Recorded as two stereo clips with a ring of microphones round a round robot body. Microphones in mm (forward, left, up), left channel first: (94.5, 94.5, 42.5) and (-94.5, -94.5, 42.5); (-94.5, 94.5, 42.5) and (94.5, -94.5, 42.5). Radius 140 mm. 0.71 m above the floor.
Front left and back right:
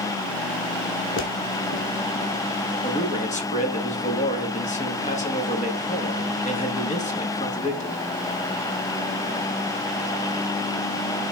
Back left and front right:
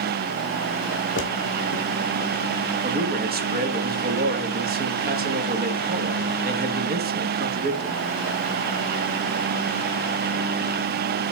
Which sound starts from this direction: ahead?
A man speaking, at 2.8 s.